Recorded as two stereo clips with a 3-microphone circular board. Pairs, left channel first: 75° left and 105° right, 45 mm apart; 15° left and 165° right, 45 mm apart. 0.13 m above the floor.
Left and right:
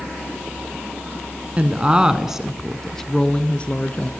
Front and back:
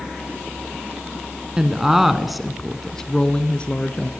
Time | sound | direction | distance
1.6 | a woman speaking | 110° right | 1.1 m